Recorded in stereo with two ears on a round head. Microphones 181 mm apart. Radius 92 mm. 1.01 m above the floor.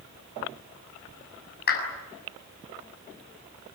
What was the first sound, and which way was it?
A clap, 55° left (ahead or behind).